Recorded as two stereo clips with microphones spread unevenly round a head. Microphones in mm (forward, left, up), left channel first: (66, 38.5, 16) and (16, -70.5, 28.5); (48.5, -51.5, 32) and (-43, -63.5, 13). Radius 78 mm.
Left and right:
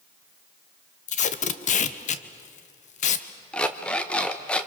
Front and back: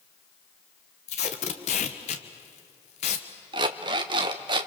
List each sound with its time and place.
1.1 s tape being pulled: 40° left, 1.3 m
3.5 s an alarm clock: 155° left, 0.8 m